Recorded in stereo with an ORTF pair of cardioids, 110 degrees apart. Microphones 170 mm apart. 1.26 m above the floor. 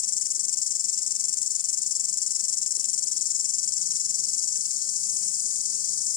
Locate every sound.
0.0 s an insect: 55° left